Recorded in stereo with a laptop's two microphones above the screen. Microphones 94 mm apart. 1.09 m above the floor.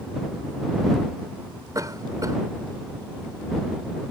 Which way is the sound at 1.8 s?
40° right (ahead or behind).